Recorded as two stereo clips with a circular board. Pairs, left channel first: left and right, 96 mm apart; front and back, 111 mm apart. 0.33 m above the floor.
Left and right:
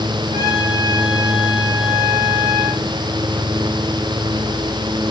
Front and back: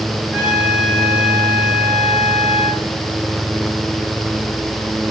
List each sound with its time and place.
0.3 s a trumpet: 100° right, 6 m